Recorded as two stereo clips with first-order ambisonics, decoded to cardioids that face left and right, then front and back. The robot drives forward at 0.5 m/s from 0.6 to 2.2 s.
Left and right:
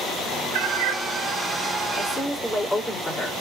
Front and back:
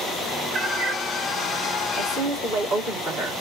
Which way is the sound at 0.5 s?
105° right.